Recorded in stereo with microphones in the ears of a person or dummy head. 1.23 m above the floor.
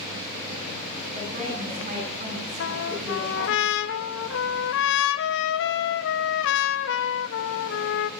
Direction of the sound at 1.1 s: 40° right (ahead or behind).